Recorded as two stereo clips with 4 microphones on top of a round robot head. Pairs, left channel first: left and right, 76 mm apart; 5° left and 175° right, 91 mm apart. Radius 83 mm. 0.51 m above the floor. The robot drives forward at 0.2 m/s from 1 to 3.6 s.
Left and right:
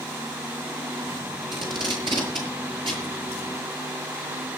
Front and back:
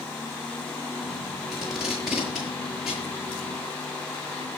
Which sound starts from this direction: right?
Tape being pulled, at 1.5 s.